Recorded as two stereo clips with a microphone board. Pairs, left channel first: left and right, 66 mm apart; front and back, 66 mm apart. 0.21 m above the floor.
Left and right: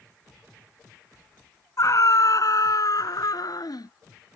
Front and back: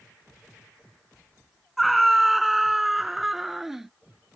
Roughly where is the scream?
Left.